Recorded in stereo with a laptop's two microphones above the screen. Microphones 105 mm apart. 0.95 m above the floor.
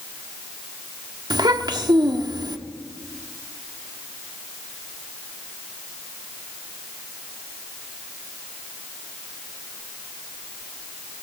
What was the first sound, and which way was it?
A child speaking, 45° right (ahead or behind).